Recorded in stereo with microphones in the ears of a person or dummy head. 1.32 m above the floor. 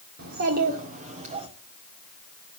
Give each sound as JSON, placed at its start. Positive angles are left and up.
{"t": 0.2, "sound": "a child speaking", "side_deg": -60, "distance_m": 2.0}